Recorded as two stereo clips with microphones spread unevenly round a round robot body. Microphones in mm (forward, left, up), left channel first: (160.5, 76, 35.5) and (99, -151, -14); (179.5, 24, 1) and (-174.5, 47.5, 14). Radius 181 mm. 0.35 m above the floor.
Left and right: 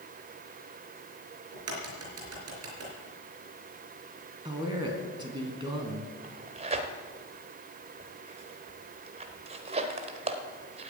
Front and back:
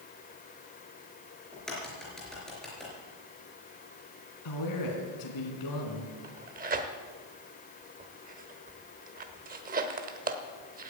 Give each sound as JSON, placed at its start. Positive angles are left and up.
{"t": 1.5, "sound": "a crack", "azimuth_deg": -90, "distance_m": 4.0}
{"t": 4.5, "sound": "a man speaking", "azimuth_deg": -35, "distance_m": 3.5}
{"t": 6.2, "sound": "tearing paper", "azimuth_deg": -125, "distance_m": 1.1}